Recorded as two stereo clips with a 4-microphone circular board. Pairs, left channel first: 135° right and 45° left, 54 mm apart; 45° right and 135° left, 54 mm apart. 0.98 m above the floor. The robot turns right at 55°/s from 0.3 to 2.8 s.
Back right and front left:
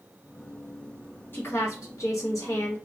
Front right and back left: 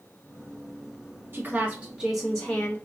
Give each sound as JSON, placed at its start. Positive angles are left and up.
{"t": 1.3, "sound": "a woman speaking", "azimuth_deg": 180, "distance_m": 1.7}